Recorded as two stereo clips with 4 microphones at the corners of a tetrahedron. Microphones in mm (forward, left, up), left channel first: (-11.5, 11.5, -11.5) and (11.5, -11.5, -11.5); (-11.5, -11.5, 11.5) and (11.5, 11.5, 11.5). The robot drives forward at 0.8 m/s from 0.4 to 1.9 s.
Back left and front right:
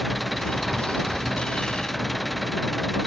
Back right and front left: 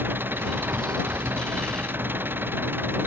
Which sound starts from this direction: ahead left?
An engine running, at 0.0 s.